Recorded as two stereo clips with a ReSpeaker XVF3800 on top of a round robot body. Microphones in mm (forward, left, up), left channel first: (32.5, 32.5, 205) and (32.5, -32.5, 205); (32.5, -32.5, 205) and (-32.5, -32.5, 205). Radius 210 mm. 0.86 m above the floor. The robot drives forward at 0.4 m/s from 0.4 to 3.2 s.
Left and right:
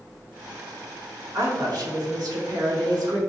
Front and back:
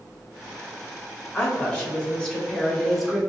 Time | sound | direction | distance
1.3 | a woman speaking | 65° right | 1.7 m